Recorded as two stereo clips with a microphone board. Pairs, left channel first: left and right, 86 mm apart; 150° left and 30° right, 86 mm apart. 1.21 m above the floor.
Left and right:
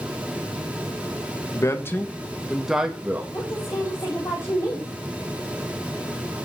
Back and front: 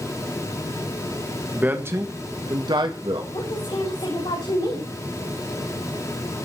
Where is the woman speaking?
145° left, 7 m.